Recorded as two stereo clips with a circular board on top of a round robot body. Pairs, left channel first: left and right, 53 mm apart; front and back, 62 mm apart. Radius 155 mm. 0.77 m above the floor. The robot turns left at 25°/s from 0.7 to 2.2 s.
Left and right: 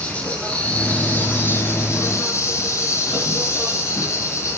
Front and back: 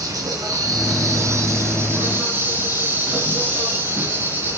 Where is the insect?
160° left, 3 m; by 4.6 s 120° left, 3 m.